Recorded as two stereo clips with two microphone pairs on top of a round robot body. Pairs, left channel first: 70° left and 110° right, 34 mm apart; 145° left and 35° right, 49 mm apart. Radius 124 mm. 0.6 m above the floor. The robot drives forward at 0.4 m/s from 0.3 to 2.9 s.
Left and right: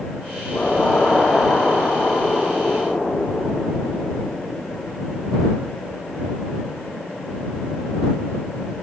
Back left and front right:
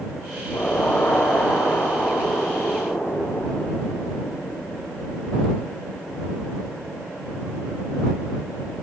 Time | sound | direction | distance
0.5 | an explosion | 115° left | 6 m